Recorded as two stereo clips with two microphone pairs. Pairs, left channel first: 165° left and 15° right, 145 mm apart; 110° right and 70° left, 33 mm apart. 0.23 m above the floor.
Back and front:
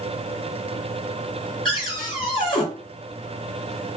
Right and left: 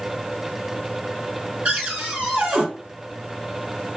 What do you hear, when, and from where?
1.6 s a cupboard door: 120° left, 2.5 m